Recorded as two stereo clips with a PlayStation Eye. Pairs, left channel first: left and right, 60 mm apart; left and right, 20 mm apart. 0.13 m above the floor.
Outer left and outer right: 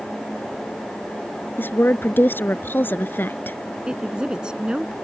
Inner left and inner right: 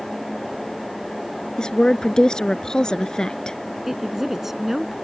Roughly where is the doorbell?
No doorbell in this recording.